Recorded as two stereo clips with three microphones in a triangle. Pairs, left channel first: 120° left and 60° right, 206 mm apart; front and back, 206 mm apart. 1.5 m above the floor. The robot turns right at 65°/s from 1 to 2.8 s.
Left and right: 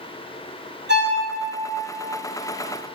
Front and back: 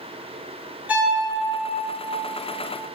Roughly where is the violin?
Right.